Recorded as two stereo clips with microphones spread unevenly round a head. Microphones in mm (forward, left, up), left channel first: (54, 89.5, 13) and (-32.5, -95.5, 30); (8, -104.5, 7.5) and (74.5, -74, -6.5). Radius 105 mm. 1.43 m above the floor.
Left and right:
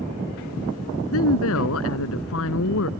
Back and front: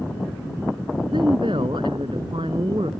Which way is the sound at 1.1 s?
90° left.